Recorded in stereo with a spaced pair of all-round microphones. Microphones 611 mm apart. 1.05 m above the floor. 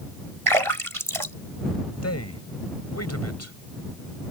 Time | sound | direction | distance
0.5 | a splash | 55° right (ahead or behind) | ?
2.0 | a man speaking | 25° left (ahead or behind) | ?